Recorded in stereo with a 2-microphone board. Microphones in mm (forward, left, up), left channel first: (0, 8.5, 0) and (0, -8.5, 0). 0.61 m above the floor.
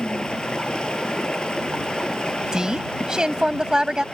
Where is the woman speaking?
40° right (ahead or behind).